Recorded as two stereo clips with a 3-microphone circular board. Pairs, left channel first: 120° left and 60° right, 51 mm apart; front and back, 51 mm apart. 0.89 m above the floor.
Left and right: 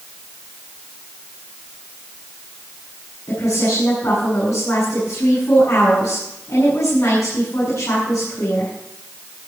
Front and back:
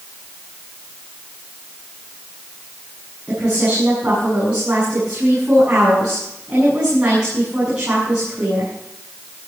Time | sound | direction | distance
3.3 | a woman speaking | 110° left | 7.5 m